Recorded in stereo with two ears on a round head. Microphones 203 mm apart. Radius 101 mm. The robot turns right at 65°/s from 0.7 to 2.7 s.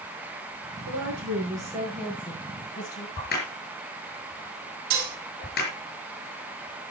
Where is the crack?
45° left (ahead or behind), 5 m.